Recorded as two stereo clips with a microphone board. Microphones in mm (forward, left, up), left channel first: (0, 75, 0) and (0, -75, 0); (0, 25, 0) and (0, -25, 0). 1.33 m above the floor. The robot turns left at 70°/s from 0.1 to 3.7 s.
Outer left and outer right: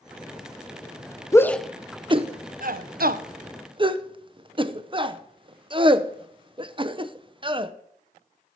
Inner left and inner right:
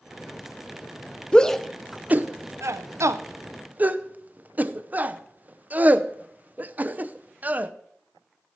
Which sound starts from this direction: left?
A shout, at 1.3 s.